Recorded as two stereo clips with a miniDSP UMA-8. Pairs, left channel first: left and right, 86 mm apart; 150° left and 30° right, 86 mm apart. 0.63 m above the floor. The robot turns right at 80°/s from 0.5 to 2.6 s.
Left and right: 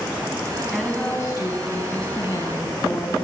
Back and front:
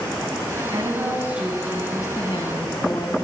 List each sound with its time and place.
0.7 s a woman speaking: 5° right, 4 m; by 3.3 s 145° left, 4 m